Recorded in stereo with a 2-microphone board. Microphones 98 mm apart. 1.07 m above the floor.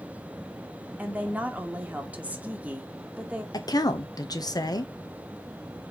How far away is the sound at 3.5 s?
About 1.0 m.